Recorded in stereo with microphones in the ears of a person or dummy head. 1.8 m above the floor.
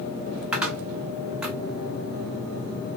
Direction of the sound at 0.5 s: 10° right (ahead or behind).